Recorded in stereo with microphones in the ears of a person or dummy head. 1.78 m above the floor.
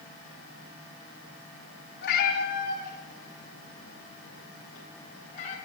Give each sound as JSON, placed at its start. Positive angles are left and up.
{"t": 2.0, "sound": "a cat meowing", "side_deg": 55, "distance_m": 2.0}